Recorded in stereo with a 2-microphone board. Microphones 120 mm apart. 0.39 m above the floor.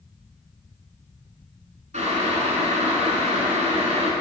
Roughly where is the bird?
I don't hear a bird.